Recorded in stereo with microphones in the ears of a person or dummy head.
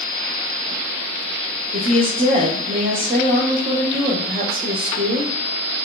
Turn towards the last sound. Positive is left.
turn(degrees=-30)  # may be behind; listen again after turning